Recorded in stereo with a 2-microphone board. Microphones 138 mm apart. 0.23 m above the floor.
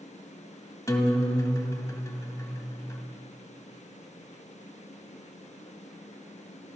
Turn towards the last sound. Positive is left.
turn(degrees=25)  # may be behind; listen again after turning